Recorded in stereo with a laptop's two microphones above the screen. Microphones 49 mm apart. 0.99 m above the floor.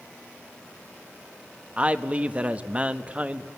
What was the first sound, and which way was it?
A man speaking, 25° right (ahead or behind).